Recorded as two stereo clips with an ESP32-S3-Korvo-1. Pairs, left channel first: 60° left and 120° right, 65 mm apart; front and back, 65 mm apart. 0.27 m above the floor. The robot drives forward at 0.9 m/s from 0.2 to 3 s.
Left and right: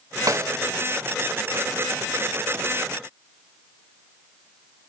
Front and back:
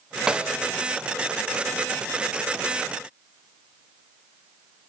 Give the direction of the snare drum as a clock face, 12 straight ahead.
3 o'clock.